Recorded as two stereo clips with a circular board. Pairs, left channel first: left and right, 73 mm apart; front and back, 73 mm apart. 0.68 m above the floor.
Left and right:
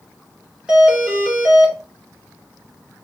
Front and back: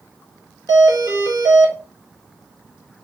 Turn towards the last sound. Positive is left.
turn(degrees=-165)